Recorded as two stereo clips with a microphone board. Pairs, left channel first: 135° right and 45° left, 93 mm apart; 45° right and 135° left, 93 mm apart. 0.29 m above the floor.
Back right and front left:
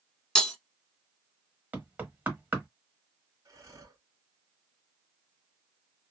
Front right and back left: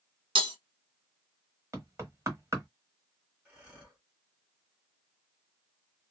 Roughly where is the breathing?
Left.